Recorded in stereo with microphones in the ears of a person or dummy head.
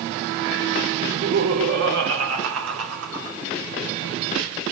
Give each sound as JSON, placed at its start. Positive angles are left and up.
{"t": 1.0, "sound": "laughter", "side_deg": -65, "distance_m": 3.0}